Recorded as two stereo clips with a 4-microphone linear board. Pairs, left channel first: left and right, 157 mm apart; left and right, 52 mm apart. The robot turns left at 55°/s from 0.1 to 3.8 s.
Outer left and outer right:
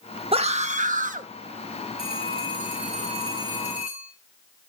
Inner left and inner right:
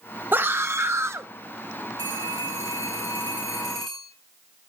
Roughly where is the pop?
I don't hear a pop.